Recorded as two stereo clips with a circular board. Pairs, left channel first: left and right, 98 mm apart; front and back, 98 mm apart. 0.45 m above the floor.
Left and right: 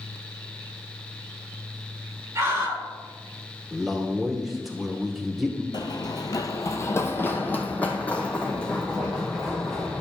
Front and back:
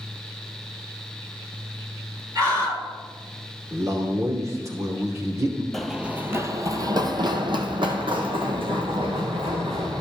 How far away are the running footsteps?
About 0.6 m.